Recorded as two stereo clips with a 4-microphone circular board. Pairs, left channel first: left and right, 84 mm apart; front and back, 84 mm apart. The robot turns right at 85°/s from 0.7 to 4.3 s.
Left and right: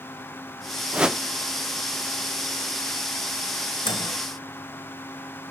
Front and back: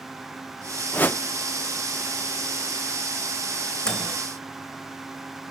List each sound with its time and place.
0.9 s a whoosh: 35° right, 0.7 m; by 1.2 s 15° right, 0.7 m
3.9 s a microwave: 80° left, 3 m; by 4.2 s 105° left, 3 m